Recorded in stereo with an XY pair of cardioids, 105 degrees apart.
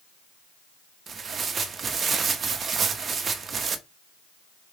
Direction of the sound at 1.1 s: 45° right.